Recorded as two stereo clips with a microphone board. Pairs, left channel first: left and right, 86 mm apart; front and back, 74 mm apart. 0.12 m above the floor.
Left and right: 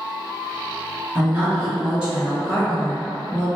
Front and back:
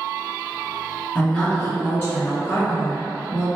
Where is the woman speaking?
65° right, 1.7 m; by 3.5 s 10° left, 2.5 m.